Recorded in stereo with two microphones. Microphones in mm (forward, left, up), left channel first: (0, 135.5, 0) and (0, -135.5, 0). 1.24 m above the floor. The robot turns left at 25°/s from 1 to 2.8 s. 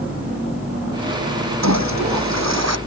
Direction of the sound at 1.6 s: 80° right.